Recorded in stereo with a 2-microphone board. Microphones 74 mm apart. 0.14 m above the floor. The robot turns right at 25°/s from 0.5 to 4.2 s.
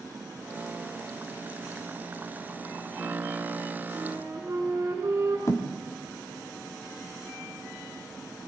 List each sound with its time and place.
3.9 s a flute: 35° right (ahead or behind), 7.5 m; by 5.4 s 40° right (ahead or behind), 7.5 m
5.5 s a thud: 45° left (ahead or behind), 3.5 m